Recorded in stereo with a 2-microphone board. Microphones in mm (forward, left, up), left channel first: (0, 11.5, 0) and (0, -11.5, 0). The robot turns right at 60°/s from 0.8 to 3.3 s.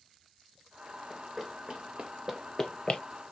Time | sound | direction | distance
1.1 | running footsteps | centre (ahead or behind) | 1.7 m